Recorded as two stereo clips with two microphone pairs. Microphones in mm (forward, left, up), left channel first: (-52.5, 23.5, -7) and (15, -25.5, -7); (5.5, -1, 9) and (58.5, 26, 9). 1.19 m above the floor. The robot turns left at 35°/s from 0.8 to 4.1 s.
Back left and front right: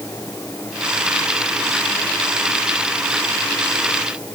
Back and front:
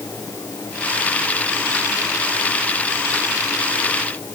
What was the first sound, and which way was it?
Only background noise.